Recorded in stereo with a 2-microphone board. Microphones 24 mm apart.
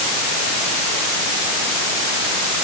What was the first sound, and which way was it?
Only background noise.